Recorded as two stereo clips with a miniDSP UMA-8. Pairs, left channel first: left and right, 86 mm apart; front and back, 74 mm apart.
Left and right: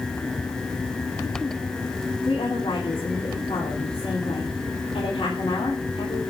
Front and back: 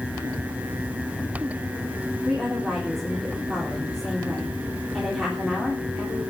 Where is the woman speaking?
90° left, 3.5 m.